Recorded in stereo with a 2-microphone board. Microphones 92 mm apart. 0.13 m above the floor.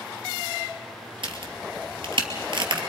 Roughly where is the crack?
Right.